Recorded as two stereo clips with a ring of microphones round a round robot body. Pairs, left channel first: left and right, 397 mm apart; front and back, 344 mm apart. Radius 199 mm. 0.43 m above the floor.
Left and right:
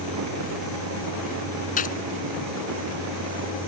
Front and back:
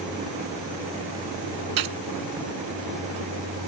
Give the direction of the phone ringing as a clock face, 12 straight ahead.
No phone ringing in this recording.